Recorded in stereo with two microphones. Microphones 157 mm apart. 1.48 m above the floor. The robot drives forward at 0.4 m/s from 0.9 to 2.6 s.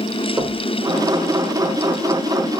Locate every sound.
0.4 s knocking: 20° right (ahead or behind), 2.5 m